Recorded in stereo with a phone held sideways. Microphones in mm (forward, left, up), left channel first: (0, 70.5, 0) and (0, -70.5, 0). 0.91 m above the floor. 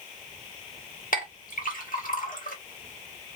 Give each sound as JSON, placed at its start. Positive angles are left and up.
{"t": 1.1, "sound": "a clink", "side_deg": 75, "distance_m": 1.1}